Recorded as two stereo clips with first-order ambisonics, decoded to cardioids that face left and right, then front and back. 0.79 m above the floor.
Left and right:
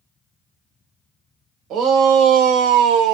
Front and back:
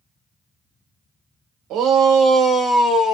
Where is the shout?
135° right, 1.2 m; by 3.2 s 60° right, 0.8 m.